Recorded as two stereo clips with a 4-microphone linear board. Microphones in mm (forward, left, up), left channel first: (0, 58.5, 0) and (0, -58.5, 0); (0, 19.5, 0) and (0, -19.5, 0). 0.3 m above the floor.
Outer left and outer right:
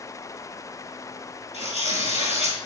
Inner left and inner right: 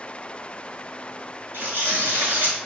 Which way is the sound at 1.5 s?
75° right (ahead or behind).